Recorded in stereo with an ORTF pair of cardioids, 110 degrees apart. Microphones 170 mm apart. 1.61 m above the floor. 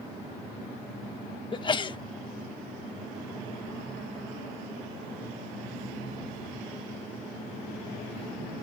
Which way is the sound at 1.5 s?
30° left.